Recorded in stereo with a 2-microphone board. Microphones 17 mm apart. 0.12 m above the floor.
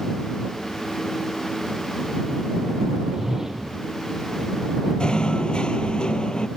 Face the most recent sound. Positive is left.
turn(degrees=65)  # may be behind; listen again after turning